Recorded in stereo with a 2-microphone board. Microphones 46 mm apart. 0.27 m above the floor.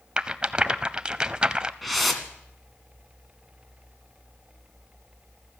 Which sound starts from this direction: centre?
A whoosh, at 1.8 s.